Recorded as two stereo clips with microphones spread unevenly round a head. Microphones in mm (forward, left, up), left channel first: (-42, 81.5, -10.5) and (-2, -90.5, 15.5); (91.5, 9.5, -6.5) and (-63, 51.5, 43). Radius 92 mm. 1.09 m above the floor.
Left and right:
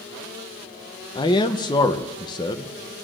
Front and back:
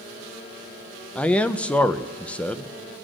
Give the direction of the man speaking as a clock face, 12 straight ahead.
10 o'clock.